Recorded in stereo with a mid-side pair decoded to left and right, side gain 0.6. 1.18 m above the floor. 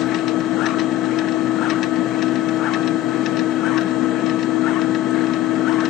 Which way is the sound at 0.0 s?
65° left.